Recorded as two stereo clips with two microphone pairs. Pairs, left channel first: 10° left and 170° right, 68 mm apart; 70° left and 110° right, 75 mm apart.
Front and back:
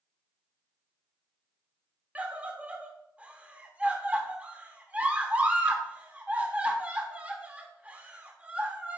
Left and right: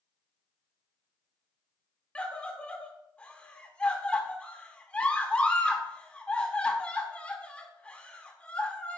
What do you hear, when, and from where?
2.1 s a scream: 135° left, 1.2 m